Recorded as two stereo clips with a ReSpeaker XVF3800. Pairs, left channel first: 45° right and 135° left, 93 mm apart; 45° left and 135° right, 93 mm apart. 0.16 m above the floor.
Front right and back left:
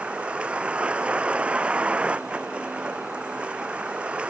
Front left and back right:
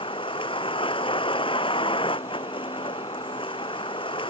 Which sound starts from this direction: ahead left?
A vehicle, at 0.0 s.